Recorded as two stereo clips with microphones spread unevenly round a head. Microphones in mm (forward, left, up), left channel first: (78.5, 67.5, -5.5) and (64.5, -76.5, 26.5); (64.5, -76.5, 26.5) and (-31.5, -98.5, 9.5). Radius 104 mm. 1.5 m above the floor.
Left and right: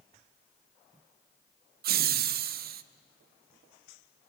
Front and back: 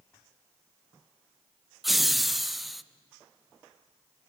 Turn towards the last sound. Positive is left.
turn(degrees=-85)